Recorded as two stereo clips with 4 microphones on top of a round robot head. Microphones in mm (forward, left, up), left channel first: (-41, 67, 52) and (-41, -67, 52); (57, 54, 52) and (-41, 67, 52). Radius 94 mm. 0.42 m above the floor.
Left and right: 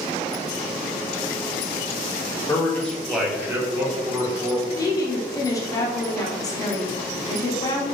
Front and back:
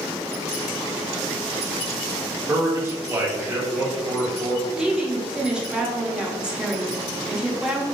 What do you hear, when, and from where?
2.5 s a man speaking: 140° left, 1.2 m; by 4.7 s 105° right, 1.7 m
4.8 s a woman speaking: 100° left, 0.8 m